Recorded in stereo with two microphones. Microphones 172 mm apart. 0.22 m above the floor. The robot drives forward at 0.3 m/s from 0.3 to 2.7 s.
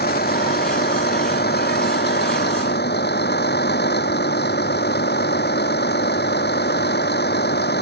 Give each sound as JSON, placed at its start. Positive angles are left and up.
{"t": 0.0, "sound": "a vehicle", "side_deg": 65}